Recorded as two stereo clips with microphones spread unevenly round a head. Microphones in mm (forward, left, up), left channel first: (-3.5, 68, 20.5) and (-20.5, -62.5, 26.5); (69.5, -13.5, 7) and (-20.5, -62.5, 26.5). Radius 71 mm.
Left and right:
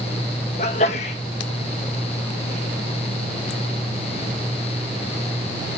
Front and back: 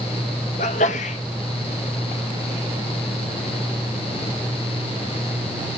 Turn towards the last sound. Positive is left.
turn(degrees=40)